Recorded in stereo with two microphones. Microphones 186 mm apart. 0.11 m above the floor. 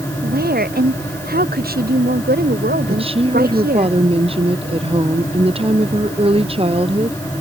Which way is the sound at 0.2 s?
55° right (ahead or behind).